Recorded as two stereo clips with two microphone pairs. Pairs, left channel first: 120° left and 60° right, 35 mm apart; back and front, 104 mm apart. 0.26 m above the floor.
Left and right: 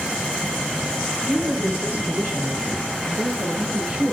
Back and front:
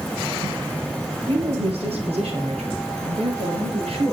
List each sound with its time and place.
1.3 s a woman speaking: 10° right, 7 m; by 4.1 s 20° left, 6 m